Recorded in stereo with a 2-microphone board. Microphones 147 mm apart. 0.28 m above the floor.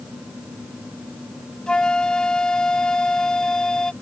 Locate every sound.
1.7 s a flute: 5° left (ahead or behind)